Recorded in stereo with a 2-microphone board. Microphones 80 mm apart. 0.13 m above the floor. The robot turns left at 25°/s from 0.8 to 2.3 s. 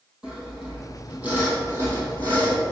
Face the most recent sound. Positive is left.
turn(degrees=-45)